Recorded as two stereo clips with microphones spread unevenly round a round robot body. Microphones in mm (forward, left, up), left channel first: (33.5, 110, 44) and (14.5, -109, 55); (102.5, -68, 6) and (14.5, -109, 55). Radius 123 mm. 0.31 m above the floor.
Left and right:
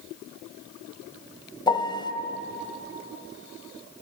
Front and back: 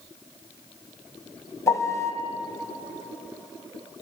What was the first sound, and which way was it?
A piano, 20° left.